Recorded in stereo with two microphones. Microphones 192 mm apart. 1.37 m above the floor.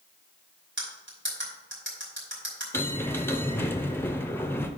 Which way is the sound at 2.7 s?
10° left (ahead or behind).